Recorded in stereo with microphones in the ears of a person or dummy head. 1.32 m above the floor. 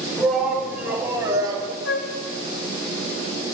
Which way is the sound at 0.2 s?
Centre (ahead or behind).